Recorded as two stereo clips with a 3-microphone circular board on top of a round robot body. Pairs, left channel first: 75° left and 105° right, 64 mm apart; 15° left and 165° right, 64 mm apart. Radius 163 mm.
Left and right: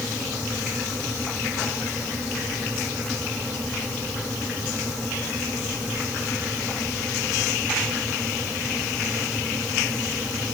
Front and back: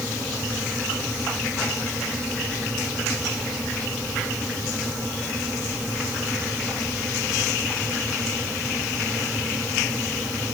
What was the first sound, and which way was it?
Only background noise.